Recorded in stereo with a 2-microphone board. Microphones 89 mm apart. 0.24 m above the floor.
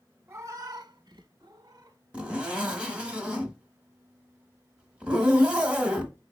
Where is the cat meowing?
30° right (ahead or behind), 0.7 m; by 2.0 s 45° right (ahead or behind), 0.9 m.